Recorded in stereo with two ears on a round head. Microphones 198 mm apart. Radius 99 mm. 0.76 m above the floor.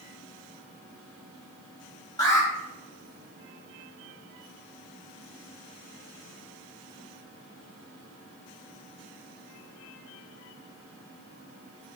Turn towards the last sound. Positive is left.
turn(degrees=20)  # may be behind; listen again after turning